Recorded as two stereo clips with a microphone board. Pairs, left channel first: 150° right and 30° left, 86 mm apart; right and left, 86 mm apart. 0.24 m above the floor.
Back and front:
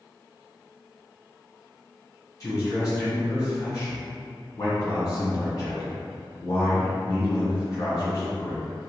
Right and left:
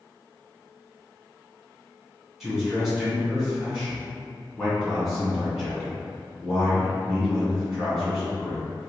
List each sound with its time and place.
2.4 s a man speaking: straight behind, 1.9 m